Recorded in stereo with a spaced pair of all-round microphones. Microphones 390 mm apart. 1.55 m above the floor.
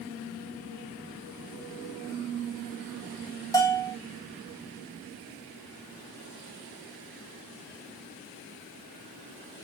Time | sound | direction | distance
3.5 | a bell | 10° left (ahead or behind) | 1.2 m